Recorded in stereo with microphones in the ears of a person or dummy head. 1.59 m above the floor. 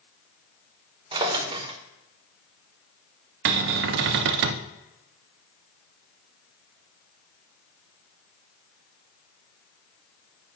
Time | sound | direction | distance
1.1 | a drawer | 30° right (ahead or behind) | 1.0 m
3.5 | a cupboard door | 60° right (ahead or behind) | 0.6 m